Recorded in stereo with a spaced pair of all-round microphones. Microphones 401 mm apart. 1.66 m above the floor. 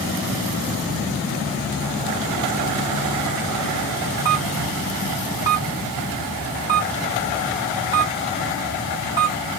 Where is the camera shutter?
10° right (ahead or behind), 1.4 m.